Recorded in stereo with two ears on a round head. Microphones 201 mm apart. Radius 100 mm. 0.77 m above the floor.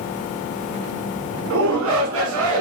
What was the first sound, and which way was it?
A shout, 65° right (ahead or behind).